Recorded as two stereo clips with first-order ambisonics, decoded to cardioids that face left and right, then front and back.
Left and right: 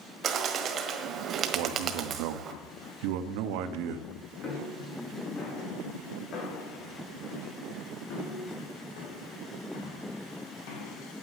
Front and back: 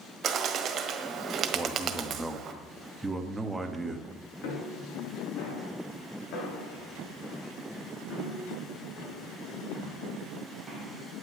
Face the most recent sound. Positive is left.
turn(degrees=85)